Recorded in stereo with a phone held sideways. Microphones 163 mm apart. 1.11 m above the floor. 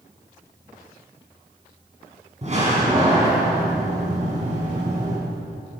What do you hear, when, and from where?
2.4 s a door slam: 45° right (ahead or behind), 8.5 m